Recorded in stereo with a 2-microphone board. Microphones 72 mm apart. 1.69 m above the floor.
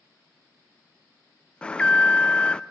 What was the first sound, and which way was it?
An alarm, 15° left (ahead or behind).